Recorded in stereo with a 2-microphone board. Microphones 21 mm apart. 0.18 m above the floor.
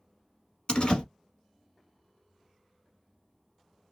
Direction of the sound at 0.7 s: 50° left (ahead or behind).